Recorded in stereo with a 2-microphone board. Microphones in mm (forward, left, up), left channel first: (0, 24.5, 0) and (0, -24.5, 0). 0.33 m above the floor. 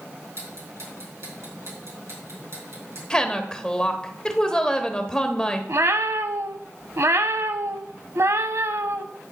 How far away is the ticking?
About 4 m.